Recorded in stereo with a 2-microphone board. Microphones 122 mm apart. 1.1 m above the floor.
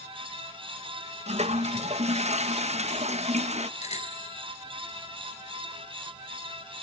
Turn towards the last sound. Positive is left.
turn(degrees=70)  # may be behind; listen again after turning